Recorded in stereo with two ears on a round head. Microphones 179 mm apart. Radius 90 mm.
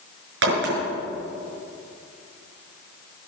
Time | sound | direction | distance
0.4 | a crack | 70° right (ahead or behind) | 6.5 m